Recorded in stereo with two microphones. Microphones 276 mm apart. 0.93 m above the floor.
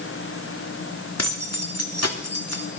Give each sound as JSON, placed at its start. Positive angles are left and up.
{"t": 1.2, "sound": "keys jangling", "side_deg": 60, "distance_m": 1.8}